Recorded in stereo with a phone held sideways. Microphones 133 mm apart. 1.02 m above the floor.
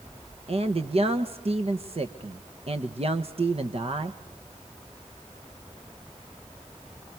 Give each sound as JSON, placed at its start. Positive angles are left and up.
{"t": 0.5, "sound": "a man speaking", "side_deg": -50, "distance_m": 1.1}